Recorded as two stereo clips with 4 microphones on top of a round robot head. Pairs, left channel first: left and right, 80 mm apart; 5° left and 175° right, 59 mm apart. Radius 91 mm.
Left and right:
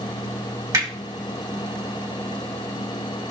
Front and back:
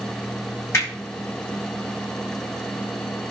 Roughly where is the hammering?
Ahead right.